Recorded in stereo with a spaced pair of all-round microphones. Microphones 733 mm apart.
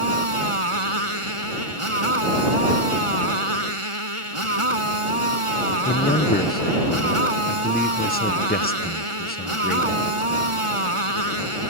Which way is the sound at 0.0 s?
45° right (ahead or behind).